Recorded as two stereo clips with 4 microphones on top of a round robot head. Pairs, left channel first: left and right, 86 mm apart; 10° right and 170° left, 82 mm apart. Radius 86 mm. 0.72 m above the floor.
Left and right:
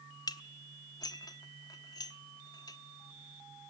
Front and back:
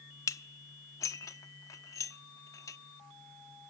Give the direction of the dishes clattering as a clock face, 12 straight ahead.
11 o'clock.